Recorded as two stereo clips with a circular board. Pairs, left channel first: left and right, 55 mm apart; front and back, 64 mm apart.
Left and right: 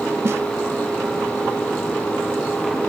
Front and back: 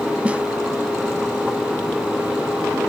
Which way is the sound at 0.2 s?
115° right.